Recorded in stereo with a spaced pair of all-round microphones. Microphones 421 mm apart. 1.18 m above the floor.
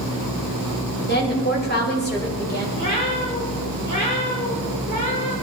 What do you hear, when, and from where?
1.1 s a woman speaking: 25° left (ahead or behind), 6 m
2.8 s a cat meowing: 45° left (ahead or behind), 5 m